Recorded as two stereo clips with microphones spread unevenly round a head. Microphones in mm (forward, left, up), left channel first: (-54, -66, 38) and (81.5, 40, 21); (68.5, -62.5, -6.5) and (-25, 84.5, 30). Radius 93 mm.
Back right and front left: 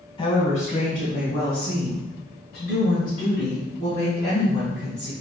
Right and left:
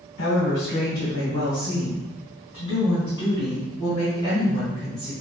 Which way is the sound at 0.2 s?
80° right.